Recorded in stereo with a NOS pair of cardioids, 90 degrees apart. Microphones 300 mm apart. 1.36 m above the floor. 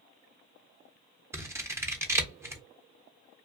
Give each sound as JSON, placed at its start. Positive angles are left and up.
{"t": 1.3, "sound": "scissors", "azimuth_deg": -10, "distance_m": 0.6}